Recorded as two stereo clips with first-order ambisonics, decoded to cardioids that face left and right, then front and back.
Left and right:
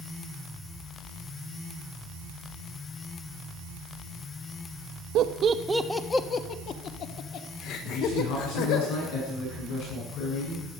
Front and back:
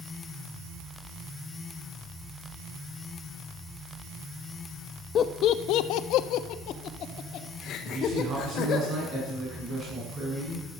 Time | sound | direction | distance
5.2 | laughter | 55° right | 1.0 m
7.9 | a man speaking | 120° left | 8 m